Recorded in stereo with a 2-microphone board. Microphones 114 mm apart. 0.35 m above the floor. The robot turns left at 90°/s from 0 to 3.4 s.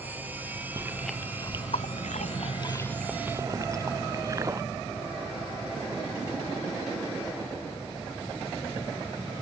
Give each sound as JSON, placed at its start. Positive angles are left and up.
{"t": 0.8, "sound": "chewing", "side_deg": -30}